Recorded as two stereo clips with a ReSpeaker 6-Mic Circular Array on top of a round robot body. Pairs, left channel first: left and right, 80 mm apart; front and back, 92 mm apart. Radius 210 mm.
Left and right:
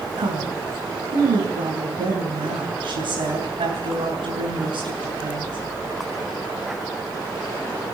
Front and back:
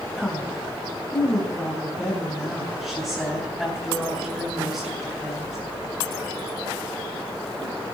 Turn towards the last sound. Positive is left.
turn(degrees=-85)